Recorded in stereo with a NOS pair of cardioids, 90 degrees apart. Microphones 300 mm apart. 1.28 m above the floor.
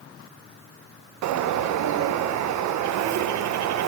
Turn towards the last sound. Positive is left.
turn(degrees=-70)